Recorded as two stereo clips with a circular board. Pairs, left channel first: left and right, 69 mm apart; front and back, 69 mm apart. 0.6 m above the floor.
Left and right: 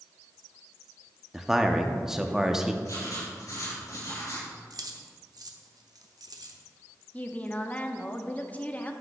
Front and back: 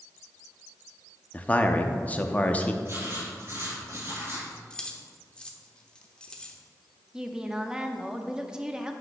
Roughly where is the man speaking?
Ahead.